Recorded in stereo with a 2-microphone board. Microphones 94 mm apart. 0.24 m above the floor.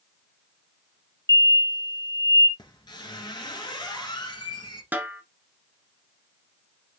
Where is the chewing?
I don't hear chewing.